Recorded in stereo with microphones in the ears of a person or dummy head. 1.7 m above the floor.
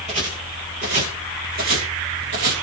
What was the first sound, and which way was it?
Footsteps, 30° right (ahead or behind).